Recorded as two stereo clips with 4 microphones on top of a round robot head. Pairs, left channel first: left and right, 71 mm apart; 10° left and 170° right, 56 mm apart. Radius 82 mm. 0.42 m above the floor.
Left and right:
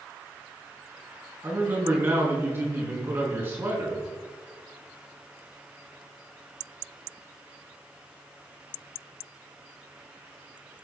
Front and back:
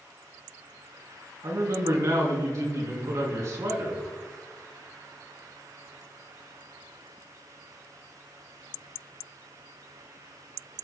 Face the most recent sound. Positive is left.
turn(degrees=-150)